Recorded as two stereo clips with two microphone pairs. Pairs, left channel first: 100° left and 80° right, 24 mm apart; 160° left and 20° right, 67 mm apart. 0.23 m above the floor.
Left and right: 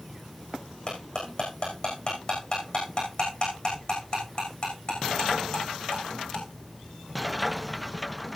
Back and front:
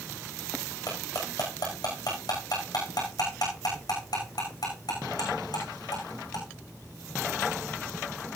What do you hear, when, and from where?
0.9 s cutlery clinking: 145° left, 9.5 m